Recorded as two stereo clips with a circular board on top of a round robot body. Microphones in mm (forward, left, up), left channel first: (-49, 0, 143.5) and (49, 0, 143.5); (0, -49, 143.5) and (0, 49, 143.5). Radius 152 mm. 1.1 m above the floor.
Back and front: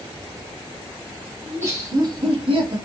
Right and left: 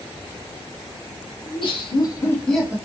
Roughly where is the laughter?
Ahead right.